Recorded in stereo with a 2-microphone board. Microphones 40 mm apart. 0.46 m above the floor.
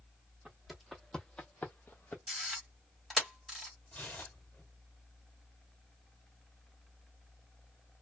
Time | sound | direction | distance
0.5 | footsteps | 10° right (ahead or behind) | 1.0 m
2.3 | a camera shutter | 5° right (ahead or behind) | 1.6 m
3.9 | tearing paper | 45° left (ahead or behind) | 1.1 m